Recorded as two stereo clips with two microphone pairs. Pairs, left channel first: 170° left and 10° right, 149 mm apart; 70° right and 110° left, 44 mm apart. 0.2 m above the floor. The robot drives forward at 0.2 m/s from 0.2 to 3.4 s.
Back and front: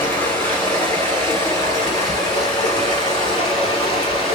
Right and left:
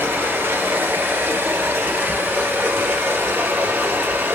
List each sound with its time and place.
0.0 s running water: 100° left, 2 m; by 4.3 s 115° left, 2.5 m